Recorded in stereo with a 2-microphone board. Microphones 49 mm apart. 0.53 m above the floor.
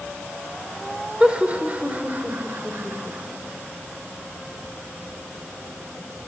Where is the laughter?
25° right (ahead or behind), 2 m; by 3.4 s 50° right (ahead or behind), 3 m.